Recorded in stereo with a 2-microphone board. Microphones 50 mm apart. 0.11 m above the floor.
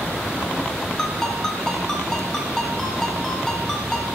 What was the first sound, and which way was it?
A ringtone, 10° left (ahead or behind).